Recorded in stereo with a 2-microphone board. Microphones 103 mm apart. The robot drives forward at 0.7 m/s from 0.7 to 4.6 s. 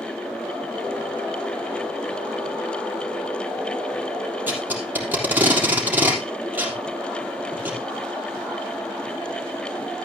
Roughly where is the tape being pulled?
Centre.